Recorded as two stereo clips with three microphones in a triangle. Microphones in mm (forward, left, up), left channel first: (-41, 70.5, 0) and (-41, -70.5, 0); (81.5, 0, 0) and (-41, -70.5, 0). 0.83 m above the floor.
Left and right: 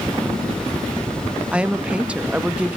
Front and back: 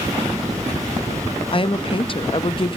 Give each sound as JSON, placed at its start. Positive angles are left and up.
{"t": 1.5, "sound": "a woman speaking", "azimuth_deg": -10, "distance_m": 0.8}